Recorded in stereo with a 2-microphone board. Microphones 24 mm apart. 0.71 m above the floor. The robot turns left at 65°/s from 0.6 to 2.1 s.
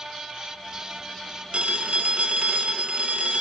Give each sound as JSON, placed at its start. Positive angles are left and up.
{"t": 1.5, "sound": "a phone ringing", "azimuth_deg": -60, "distance_m": 1.6}